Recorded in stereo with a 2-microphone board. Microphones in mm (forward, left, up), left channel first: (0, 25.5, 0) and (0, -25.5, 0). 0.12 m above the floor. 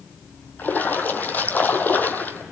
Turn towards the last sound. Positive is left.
turn(degrees=35)  # may be behind; listen again after turning